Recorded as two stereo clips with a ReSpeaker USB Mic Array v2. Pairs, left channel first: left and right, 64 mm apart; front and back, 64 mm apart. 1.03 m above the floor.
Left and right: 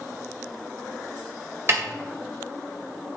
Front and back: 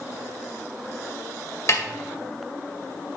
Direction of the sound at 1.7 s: 40° right.